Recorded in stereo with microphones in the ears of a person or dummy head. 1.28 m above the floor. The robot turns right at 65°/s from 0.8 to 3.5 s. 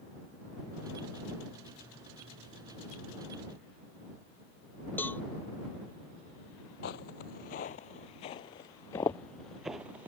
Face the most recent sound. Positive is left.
turn(degrees=-15)  # may be behind; listen again after turning